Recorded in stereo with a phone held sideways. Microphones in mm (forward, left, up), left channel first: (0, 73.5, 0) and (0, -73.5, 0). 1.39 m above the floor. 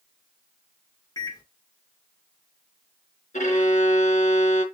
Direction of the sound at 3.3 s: 55° left (ahead or behind).